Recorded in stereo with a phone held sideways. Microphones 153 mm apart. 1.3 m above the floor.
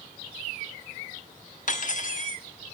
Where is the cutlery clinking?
60° left (ahead or behind), 1.3 m.